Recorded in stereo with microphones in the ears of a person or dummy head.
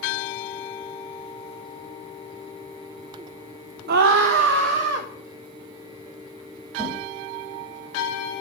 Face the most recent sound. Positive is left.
turn(degrees=-50)  # may be behind; listen again after turning